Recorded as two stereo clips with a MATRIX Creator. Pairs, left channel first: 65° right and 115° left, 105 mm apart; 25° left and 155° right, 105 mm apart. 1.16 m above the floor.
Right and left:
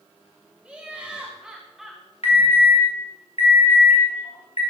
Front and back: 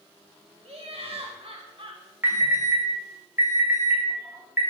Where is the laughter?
170° right, 1.5 m; by 2.0 s 160° right, 0.9 m.